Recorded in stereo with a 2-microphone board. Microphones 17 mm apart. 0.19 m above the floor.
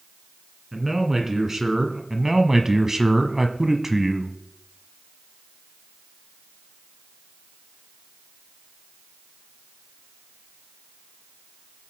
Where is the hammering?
No hammering in this recording.